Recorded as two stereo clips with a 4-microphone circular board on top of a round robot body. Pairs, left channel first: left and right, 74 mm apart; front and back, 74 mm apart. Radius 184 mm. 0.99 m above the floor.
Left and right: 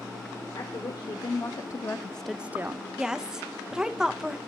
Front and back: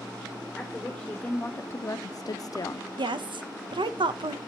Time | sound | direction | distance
0.6 | a woman speaking | 75° left | 1.2 m
3.0 | a woman speaking | 170° right | 0.8 m